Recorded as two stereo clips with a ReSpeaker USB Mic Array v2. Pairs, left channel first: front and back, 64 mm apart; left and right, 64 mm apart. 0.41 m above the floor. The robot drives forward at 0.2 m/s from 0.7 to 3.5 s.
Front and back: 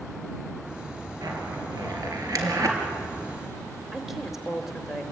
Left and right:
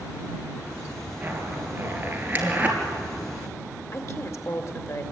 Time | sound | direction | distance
1.2 | a zipper | 150° right | 4 m
3.9 | a woman speaking | 95° left | 2 m